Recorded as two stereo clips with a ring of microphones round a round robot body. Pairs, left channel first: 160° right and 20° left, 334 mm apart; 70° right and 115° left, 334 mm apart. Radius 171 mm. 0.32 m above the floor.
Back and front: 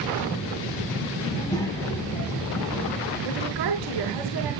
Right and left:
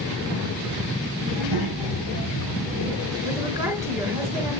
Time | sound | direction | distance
1.3 | a child speaking | 130° left | 3.5 m
3.2 | a woman speaking | 35° left | 3.5 m